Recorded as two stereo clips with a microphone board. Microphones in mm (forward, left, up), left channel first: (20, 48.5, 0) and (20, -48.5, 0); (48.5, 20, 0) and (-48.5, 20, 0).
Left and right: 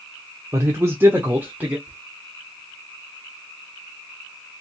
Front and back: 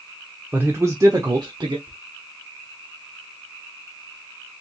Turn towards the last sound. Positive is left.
turn(degrees=-160)